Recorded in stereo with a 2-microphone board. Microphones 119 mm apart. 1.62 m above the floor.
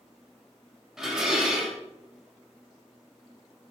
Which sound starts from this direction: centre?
Dishes clattering, at 1.0 s.